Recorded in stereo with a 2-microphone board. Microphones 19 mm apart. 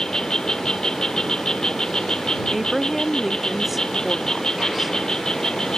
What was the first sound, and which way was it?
An insect, 40° left (ahead or behind).